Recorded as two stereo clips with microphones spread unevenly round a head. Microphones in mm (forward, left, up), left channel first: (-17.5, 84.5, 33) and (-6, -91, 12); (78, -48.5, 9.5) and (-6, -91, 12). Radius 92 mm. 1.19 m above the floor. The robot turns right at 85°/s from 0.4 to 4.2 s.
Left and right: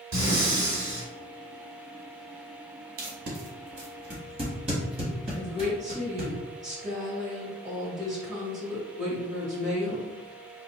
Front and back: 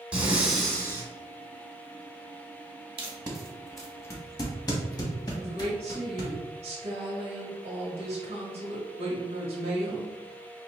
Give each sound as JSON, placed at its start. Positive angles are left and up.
{"t": 0.1, "sound": "breathing", "azimuth_deg": -75, "distance_m": 1.9}
{"t": 3.0, "sound": "tape being pulled", "azimuth_deg": -130, "distance_m": 1.3}
{"t": 5.3, "sound": "a woman speaking", "azimuth_deg": -135, "distance_m": 1.2}